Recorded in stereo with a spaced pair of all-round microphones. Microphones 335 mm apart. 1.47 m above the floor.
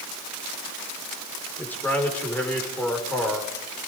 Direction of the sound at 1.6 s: 5° left (ahead or behind).